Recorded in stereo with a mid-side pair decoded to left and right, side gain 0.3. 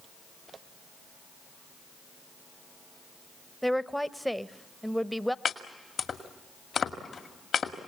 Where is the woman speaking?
Straight ahead, 0.8 m.